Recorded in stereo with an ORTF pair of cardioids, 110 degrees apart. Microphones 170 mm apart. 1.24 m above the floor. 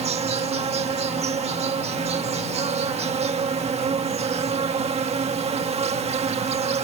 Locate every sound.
0.0 s an insect: 40° right